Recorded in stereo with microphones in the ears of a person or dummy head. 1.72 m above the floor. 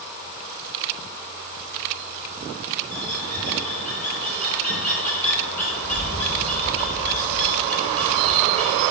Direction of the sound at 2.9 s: 10° left (ahead or behind).